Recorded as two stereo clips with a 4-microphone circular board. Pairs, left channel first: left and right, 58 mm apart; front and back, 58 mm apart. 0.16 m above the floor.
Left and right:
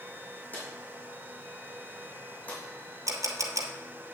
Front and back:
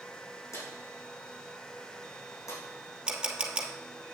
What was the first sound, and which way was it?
A drawer, 25° left.